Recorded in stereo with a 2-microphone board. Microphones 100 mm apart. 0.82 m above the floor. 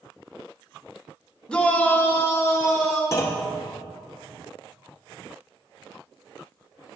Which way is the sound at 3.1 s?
30° left (ahead or behind).